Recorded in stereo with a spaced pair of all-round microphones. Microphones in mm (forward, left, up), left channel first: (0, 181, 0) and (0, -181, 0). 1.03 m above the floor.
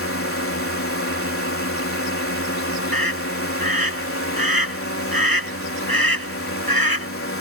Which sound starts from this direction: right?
A scream, at 2.9 s.